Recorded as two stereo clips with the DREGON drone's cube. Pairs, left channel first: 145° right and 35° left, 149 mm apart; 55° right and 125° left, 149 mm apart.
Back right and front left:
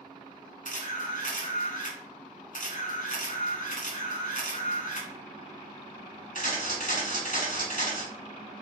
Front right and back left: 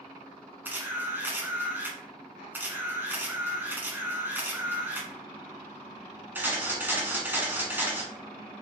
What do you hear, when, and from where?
0.7 s a camera shutter: 160° right, 1.4 m